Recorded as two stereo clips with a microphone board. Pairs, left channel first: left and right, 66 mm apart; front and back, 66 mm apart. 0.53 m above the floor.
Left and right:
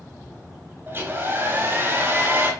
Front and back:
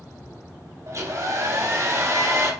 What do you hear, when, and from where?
0.9 s a hair dryer: 145° right, 3.5 m